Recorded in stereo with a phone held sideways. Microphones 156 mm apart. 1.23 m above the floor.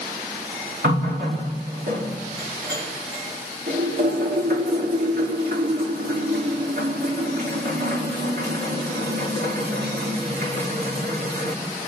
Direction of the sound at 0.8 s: 80° right.